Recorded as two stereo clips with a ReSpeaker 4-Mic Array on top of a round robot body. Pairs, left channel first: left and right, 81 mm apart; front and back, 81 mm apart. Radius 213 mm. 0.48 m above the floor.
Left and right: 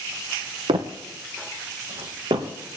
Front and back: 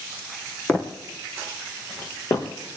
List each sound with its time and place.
0.7 s footsteps: 70° right, 1.2 m; by 2.5 s 55° right, 2 m